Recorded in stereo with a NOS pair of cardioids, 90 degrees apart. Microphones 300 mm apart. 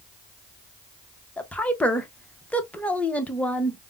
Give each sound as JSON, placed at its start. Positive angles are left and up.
{"t": 1.4, "sound": "a woman speaking", "azimuth_deg": 5, "distance_m": 0.7}